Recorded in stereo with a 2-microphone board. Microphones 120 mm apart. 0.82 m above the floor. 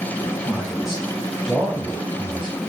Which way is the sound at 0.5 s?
Centre (ahead or behind).